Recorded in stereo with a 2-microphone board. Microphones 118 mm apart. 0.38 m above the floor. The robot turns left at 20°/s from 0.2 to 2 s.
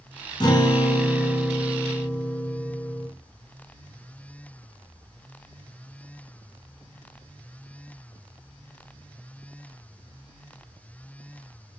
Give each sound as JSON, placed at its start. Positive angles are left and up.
{"t": 0.4, "sound": "a guitar", "azimuth_deg": 40, "distance_m": 1.4}